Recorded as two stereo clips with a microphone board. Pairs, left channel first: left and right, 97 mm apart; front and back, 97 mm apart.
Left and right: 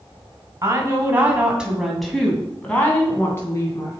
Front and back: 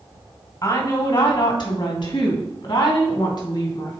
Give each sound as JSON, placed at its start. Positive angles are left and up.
{"t": 0.6, "sound": "a woman speaking", "azimuth_deg": -40, "distance_m": 2.0}